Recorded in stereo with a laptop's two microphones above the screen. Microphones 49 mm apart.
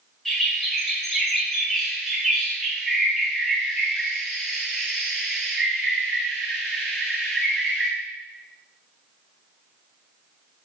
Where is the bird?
5° left (ahead or behind), 1.1 m.